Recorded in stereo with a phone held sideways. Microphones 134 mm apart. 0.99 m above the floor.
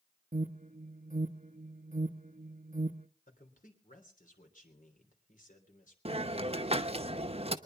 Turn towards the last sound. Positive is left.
turn(degrees=-50)  # may be behind; listen again after turning